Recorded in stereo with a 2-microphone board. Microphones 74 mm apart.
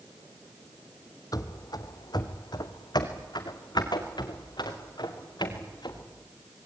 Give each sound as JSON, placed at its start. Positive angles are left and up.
{"t": 1.3, "sound": "running footsteps", "side_deg": 60, "distance_m": 1.3}